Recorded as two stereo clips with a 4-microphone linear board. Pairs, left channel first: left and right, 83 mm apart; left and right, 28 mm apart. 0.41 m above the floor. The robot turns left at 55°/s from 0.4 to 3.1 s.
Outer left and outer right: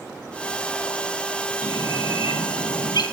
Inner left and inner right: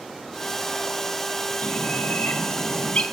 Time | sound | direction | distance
1.6 | a bird | 130° left | 1.5 m